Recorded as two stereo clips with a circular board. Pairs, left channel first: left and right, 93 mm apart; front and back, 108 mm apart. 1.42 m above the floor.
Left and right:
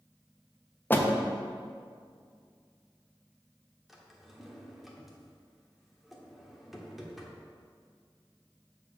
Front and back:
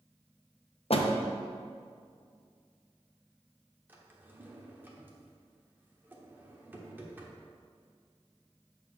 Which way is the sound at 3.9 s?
170° right.